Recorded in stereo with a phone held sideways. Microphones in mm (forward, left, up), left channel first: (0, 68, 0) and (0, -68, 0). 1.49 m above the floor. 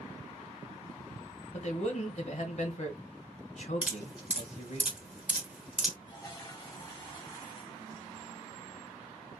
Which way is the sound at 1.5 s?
55° left (ahead or behind).